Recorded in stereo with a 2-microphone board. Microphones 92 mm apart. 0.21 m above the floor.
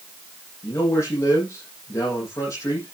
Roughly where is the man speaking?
Left.